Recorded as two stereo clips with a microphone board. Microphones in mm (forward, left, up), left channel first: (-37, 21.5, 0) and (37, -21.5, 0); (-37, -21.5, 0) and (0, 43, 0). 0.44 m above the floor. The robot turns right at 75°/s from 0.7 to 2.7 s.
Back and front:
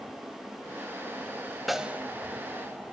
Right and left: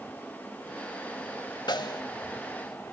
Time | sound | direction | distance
1.7 | a snare drum | 120° right | 0.8 m